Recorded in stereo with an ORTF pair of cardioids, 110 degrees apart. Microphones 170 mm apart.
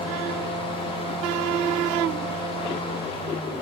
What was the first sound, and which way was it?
A fan, 30° left.